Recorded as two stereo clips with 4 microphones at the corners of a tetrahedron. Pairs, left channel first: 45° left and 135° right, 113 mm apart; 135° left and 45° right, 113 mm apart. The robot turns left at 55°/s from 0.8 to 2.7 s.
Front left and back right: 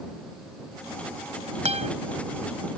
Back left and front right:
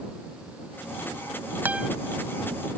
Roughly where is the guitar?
Behind right.